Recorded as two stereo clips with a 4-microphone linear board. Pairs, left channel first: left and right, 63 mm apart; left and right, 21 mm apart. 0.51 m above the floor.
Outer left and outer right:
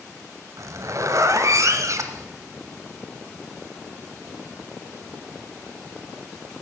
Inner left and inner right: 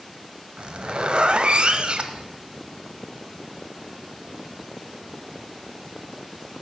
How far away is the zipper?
About 0.8 m.